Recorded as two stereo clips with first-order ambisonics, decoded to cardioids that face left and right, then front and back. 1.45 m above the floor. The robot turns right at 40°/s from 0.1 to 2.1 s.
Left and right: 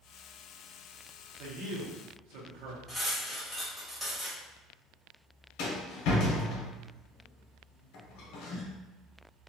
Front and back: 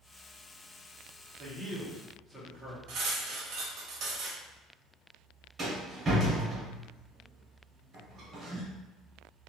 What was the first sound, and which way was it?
A man speaking, 120° right.